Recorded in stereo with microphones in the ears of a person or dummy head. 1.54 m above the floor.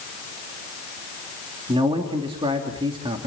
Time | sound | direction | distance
1.7 | a man speaking | 20° right (ahead or behind) | 2.5 m